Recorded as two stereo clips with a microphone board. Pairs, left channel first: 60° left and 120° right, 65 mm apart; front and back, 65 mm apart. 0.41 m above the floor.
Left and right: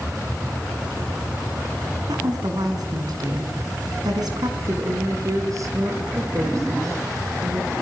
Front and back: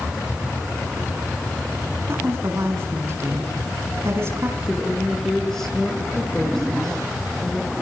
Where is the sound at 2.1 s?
130° right, 4.5 m.